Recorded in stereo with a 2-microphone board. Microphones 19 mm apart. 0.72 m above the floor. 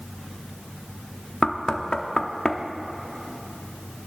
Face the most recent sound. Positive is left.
turn(degrees=40)  # may be behind; listen again after turning